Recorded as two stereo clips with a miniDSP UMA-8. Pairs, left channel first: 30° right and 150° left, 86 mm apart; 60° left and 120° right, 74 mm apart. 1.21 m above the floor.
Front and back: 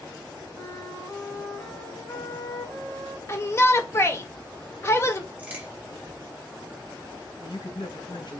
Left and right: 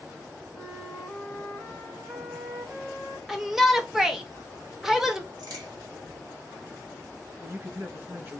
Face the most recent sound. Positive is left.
turn(degrees=-60)